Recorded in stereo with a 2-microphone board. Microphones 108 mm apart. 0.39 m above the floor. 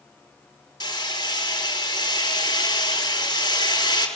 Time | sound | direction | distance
0.8 | hammering | 40° left (ahead or behind) | 4.5 m